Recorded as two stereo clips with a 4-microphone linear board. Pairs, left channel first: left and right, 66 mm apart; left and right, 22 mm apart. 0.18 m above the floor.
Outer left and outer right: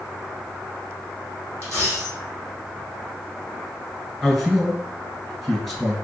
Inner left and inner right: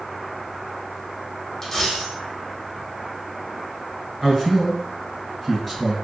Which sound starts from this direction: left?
A dropped coin, at 1.6 s.